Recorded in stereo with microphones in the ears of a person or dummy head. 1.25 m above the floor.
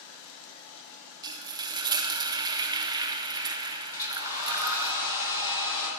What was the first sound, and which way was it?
Frying, 20° right (ahead or behind).